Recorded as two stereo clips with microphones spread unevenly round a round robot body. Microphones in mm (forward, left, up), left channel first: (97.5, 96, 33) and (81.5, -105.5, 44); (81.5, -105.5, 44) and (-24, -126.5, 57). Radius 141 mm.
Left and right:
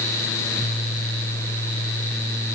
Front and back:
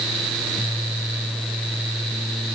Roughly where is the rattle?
I don't hear a rattle.